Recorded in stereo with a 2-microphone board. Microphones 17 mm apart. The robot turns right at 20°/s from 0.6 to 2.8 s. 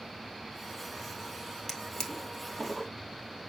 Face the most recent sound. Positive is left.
turn(degrees=25)  # may be behind; listen again after turning